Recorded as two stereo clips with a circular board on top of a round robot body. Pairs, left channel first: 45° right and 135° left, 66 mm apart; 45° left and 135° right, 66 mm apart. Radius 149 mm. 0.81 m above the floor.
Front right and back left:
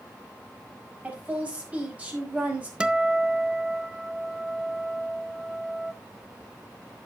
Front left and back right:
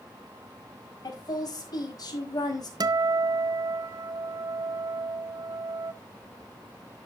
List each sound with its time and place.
1.0 s a woman speaking: 65° left, 5 m
2.8 s a guitar: 150° right, 0.7 m